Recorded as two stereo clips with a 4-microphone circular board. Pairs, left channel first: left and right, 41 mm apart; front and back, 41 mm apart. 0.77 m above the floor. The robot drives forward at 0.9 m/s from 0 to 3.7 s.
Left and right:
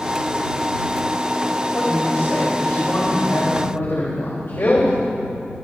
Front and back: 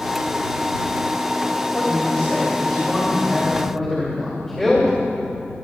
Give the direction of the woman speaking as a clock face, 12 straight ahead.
10 o'clock.